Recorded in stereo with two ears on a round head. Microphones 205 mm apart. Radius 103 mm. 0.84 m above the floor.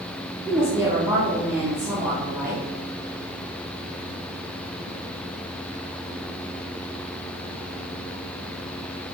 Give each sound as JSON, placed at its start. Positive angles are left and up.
{"t": 0.5, "sound": "a woman speaking", "side_deg": -15, "distance_m": 2.0}